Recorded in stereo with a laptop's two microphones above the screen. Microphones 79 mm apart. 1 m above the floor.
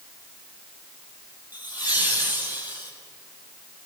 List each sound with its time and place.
1.5 s laughter: 25° right (ahead or behind), 6 m; by 2.9 s 30° right (ahead or behind), 5.5 m